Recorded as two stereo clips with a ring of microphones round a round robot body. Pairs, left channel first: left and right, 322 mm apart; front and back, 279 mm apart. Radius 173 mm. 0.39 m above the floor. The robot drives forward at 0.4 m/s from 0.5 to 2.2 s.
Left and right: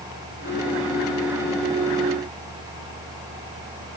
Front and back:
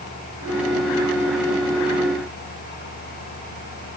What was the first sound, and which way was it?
Only background noise.